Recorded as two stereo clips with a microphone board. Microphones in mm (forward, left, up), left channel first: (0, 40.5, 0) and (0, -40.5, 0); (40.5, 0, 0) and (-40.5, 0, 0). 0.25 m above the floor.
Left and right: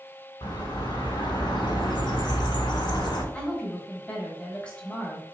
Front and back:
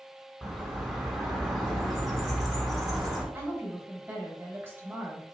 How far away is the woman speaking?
About 1.0 m.